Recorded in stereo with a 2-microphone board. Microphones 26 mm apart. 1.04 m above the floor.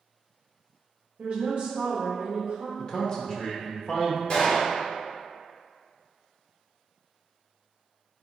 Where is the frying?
I don't hear frying.